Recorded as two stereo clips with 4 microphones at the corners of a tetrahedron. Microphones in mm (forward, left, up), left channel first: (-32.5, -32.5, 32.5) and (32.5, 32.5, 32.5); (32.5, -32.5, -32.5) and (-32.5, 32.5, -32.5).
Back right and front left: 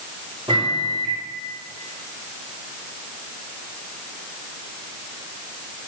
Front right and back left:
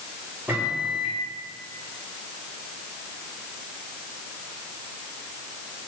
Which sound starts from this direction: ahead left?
A microwave, at 0.5 s.